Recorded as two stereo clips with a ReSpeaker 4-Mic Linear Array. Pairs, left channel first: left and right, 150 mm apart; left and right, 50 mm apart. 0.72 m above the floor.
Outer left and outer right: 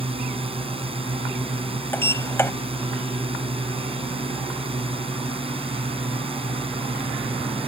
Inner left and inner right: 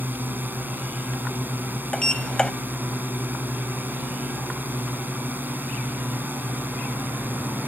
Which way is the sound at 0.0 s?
40° right (ahead or behind).